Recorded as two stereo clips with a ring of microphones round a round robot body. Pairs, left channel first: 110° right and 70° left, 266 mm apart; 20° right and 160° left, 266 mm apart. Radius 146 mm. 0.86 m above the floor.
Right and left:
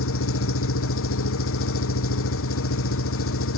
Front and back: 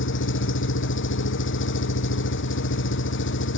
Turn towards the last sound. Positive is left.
turn(degrees=-70)